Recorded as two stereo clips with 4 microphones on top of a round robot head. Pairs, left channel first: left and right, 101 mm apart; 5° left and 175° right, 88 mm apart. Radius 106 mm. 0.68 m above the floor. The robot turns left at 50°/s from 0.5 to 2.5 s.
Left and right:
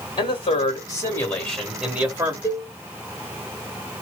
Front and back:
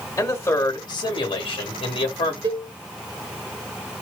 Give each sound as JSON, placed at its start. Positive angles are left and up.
{"t": 0.2, "sound": "a man speaking", "azimuth_deg": 60, "distance_m": 1.8}
{"t": 2.4, "sound": "a cowbell", "azimuth_deg": 155, "distance_m": 0.6}